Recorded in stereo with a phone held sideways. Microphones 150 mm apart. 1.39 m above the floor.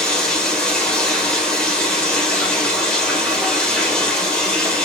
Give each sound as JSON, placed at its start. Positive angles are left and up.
{"t": 0.0, "sound": "running water", "side_deg": 5, "distance_m": 2.0}